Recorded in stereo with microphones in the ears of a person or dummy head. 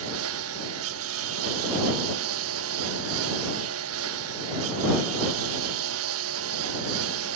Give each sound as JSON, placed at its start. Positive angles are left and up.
{"t": 0.0, "sound": "a lawn mower", "side_deg": -80}